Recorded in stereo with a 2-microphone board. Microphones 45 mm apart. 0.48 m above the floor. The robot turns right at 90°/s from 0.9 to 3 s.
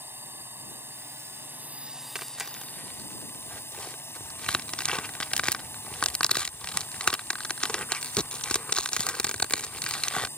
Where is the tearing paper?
20° right (ahead or behind); by 10.3 s 25° left (ahead or behind).